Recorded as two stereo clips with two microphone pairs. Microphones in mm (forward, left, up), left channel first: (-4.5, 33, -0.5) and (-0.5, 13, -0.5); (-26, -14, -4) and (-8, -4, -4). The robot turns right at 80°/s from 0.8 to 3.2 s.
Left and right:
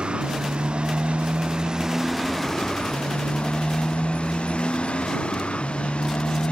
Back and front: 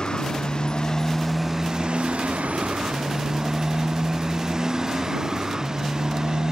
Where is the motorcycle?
105° right; by 6.5 s 85° left.